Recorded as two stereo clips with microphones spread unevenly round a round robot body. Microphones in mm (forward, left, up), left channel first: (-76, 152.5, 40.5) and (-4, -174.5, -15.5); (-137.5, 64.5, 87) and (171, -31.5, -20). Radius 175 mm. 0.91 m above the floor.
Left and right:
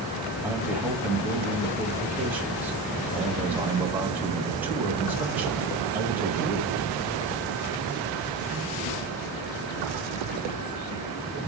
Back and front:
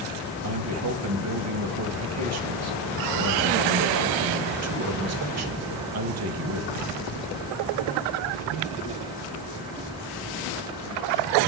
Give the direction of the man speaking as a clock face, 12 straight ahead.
12 o'clock.